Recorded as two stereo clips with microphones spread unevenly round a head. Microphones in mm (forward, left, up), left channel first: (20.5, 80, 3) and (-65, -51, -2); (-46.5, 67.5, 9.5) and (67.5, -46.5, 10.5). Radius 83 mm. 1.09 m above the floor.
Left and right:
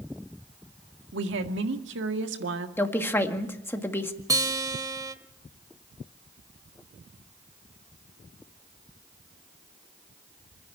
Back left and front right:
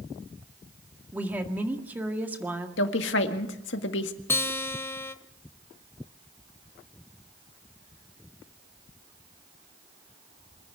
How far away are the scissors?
No scissors in this recording.